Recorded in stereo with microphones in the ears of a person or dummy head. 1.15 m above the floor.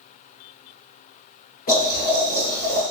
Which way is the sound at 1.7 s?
40° left (ahead or behind).